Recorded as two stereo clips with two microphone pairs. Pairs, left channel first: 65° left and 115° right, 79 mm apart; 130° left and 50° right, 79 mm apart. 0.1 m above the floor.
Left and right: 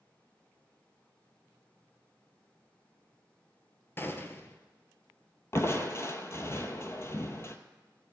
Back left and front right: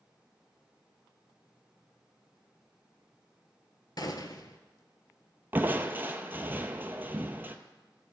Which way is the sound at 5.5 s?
15° left.